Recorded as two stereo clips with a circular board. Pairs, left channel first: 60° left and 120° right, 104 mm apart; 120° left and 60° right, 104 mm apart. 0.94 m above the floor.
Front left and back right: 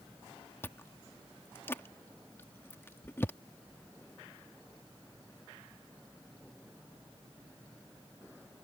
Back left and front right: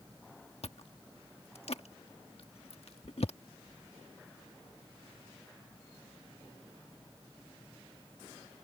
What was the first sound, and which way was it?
Chewing, 125° left.